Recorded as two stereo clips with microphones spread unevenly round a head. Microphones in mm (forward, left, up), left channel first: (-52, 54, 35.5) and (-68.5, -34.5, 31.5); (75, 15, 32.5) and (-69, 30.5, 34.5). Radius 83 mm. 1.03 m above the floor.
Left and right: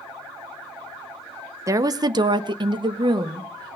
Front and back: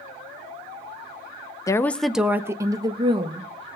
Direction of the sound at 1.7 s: 65° right.